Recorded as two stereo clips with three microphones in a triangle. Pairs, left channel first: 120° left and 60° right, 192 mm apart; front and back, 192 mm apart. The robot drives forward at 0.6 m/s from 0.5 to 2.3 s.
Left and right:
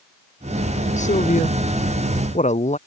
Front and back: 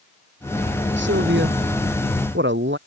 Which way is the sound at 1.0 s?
170° left.